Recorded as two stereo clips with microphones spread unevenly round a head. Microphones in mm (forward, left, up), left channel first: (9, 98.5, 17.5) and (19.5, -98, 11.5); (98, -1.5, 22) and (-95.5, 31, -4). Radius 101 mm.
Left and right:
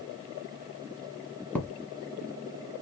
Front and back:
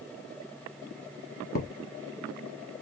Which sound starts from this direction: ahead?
A thud, at 1.6 s.